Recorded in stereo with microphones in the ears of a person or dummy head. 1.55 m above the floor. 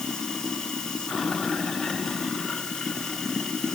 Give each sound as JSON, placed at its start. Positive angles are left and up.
{"t": 0.0, "sound": "running water", "side_deg": 0}